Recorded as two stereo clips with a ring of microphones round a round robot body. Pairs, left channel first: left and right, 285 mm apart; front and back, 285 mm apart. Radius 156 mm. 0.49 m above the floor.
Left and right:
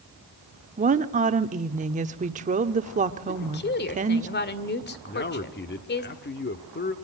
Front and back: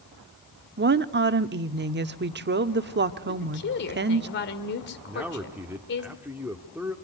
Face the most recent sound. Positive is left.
turn(degrees=100)